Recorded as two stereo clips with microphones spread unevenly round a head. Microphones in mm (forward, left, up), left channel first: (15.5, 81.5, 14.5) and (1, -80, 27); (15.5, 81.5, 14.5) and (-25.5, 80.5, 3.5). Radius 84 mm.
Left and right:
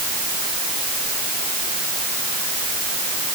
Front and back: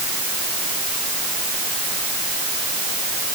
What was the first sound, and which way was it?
Only background noise.